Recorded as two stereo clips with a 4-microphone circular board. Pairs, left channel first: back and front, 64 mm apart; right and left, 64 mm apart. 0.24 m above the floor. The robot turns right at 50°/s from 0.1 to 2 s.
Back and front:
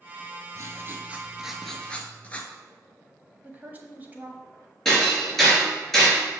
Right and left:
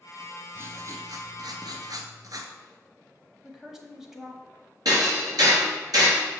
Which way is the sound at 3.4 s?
15° left.